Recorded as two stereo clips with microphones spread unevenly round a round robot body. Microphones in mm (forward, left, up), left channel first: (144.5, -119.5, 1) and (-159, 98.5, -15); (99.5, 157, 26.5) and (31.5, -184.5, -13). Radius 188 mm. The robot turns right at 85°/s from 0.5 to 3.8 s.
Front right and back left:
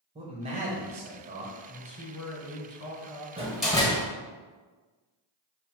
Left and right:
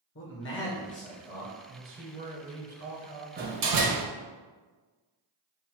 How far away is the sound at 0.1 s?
About 0.9 m.